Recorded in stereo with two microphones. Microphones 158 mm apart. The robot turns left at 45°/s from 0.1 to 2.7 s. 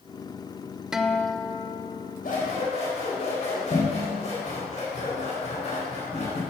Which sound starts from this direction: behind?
A guitar, at 0.9 s.